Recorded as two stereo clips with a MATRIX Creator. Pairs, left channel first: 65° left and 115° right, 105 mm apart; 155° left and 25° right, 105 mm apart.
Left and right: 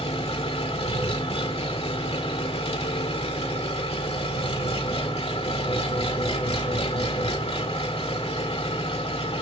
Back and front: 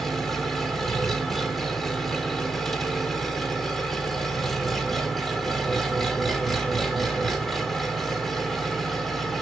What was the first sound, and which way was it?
An engine running, 70° left.